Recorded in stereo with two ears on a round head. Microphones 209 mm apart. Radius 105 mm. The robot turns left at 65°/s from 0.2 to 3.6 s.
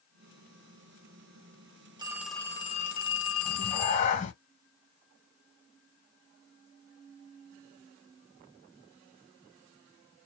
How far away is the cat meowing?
About 1.0 m.